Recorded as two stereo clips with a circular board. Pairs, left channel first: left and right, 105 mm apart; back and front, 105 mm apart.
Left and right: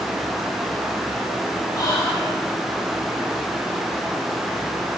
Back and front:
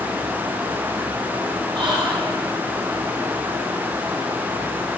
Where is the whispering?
35° left, 0.9 m.